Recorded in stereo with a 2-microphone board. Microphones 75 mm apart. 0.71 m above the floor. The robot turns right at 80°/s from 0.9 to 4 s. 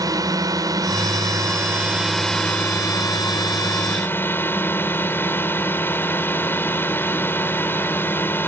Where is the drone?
105° right; by 8.5 s 145° left.